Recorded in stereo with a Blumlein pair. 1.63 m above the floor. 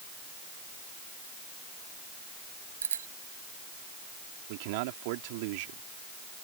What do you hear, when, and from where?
2.8 s a bicycle bell: 70° right
4.5 s a man speaking: 45° right